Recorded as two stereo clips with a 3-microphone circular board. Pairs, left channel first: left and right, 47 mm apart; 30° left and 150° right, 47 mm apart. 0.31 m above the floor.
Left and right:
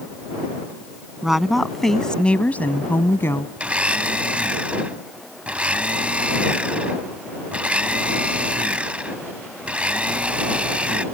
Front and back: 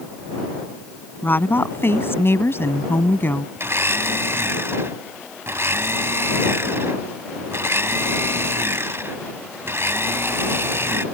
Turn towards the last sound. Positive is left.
turn(degrees=-150)